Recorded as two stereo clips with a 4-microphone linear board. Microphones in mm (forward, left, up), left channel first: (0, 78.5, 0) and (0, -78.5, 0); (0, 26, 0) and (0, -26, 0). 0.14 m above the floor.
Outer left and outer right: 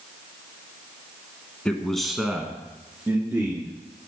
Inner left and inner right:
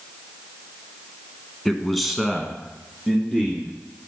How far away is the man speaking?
About 1.1 m.